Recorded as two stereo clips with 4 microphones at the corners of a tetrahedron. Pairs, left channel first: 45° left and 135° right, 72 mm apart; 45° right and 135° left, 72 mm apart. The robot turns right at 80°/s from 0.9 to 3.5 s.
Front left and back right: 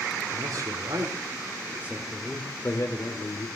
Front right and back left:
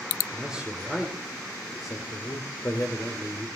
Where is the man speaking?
150° right, 2.5 m; by 3.5 s 55° left, 2.5 m.